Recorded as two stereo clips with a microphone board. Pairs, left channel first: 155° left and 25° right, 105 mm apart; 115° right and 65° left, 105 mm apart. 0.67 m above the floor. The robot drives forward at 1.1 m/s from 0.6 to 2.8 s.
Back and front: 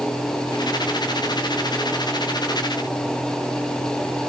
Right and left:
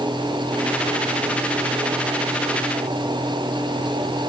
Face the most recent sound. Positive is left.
No sound to turn to.